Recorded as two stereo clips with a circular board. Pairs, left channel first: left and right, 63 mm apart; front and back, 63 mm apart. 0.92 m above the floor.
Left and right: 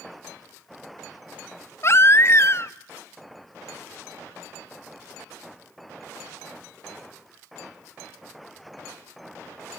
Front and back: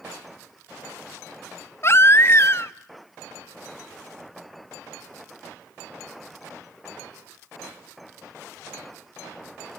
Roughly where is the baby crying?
Ahead left.